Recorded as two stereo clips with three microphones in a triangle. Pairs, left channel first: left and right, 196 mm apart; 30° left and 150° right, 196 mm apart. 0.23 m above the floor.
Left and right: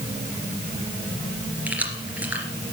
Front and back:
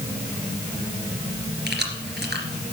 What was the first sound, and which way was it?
Keys jangling, 170° right.